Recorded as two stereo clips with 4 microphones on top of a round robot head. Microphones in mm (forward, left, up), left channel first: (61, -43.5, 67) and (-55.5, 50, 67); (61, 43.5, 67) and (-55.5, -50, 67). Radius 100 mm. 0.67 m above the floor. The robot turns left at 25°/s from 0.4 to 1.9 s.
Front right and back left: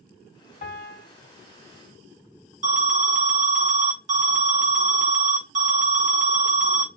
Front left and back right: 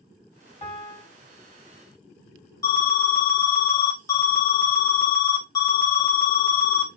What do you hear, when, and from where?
0.6 s a piano: 15° right, 1.8 m; by 1.1 s 25° right, 1.8 m
2.6 s an alarm: 105° left, 1.7 m